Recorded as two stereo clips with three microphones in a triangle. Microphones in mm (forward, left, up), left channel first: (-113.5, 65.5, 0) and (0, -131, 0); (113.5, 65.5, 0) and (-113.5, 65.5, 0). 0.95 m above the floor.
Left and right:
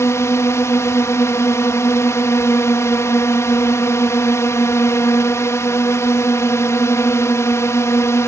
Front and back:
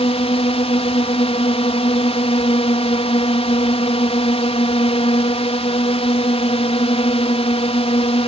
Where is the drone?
50° left.